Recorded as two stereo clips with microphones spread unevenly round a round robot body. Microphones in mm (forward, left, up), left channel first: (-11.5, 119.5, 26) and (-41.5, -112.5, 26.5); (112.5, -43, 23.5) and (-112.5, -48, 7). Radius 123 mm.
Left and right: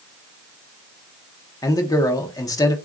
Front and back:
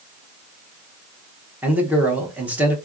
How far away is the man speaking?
About 0.7 m.